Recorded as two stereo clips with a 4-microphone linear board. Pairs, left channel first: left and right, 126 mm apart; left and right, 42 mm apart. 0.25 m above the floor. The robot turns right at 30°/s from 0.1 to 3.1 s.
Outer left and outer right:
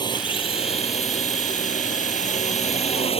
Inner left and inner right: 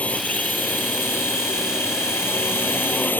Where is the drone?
35° left; by 3.2 s 125° left.